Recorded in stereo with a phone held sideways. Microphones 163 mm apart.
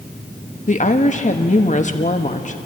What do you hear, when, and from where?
0.7 s a woman speaking: 45° left (ahead or behind), 1.3 m